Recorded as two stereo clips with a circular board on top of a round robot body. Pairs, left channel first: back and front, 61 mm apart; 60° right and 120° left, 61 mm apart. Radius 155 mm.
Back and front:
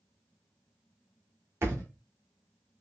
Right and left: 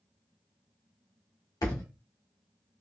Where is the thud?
50° right, 1.4 m.